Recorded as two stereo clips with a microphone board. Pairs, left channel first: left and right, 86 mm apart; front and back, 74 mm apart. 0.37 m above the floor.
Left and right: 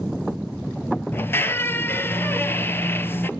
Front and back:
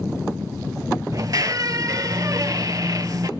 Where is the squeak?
150° left, 0.6 m.